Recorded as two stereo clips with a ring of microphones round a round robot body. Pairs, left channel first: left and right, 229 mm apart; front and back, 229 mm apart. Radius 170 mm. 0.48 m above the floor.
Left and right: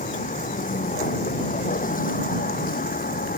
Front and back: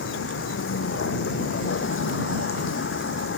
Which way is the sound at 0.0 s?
35° left.